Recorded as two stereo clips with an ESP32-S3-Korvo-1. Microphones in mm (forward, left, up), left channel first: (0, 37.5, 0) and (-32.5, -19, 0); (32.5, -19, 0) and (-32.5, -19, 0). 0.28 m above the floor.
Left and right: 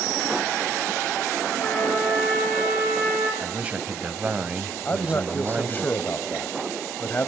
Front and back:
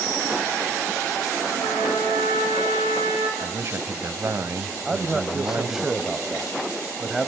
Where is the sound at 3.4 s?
Straight behind, 1.2 m.